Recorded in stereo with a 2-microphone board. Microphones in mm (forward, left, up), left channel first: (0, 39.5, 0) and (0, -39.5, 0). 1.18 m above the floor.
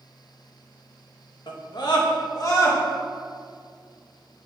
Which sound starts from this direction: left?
A scream, at 1.5 s.